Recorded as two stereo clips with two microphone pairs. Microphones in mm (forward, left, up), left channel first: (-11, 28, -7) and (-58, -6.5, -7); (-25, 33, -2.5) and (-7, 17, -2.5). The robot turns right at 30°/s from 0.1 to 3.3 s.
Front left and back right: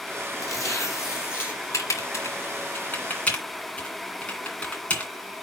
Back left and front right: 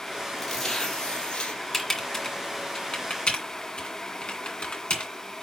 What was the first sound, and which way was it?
Tearing paper, 55° left.